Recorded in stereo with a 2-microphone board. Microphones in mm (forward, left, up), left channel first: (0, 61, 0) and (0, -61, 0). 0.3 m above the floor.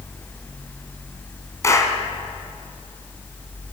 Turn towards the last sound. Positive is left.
turn(degrees=25)  # may be behind; listen again after turning